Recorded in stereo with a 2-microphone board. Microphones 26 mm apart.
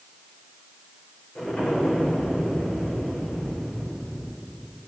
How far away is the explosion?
About 10 m.